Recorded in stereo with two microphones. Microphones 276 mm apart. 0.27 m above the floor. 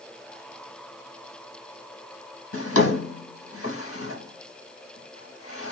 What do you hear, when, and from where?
2.5 s a drawer: 55° left (ahead or behind), 0.8 m